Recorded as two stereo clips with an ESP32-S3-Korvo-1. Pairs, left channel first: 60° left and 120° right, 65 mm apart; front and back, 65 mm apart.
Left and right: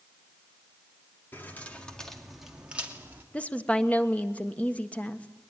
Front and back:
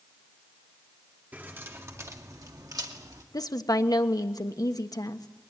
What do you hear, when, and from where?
1.3 s keys jangling: 120° left, 2.5 m; by 3.2 s straight behind, 2.5 m
3.3 s a woman speaking: 10° right, 1.3 m